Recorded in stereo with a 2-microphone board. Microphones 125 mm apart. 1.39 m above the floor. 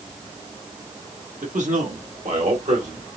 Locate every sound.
1.4 s a man speaking: 80° right, 1.4 m; by 3.0 s 85° right, 2 m